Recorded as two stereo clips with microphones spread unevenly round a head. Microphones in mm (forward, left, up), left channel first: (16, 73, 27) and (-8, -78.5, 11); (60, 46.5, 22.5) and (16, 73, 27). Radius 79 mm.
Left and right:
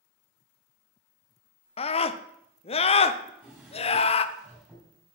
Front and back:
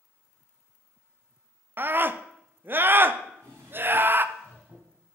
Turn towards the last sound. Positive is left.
turn(degrees=180)